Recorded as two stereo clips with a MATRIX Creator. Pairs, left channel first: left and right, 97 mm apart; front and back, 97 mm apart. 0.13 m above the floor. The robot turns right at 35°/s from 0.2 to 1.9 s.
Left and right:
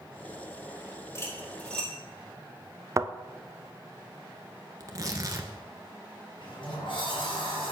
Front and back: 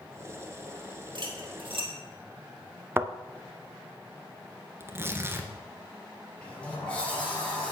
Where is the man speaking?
No man speaking in this recording.